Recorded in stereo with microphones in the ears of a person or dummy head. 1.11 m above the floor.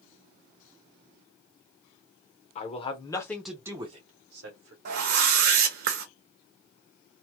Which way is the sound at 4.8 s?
50° right (ahead or behind).